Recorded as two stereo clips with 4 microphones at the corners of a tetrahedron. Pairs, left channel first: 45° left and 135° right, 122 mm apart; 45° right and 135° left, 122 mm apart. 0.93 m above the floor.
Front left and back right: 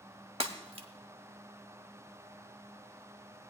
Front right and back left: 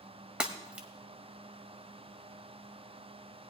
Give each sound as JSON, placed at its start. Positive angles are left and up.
{"t": 0.4, "sound": "breaking glass", "azimuth_deg": -145, "distance_m": 1.1}